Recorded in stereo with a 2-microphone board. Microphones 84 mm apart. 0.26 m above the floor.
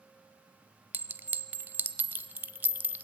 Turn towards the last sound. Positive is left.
turn(degrees=-25)  # may be behind; listen again after turning